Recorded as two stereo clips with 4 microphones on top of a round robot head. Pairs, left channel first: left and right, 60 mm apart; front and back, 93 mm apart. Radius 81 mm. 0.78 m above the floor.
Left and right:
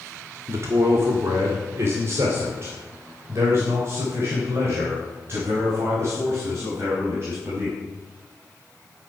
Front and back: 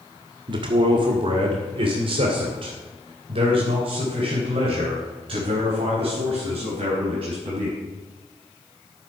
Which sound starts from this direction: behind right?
A man speaking, at 0.5 s.